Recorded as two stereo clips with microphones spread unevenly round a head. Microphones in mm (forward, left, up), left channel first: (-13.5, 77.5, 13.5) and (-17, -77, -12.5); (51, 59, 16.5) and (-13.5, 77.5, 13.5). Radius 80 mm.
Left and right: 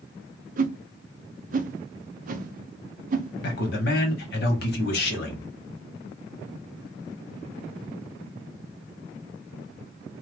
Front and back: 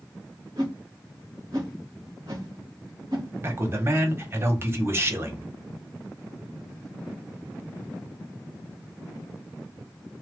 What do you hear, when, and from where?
0.6 s a whoosh: 130° right, 0.5 m
3.4 s a man speaking: 110° left, 1.2 m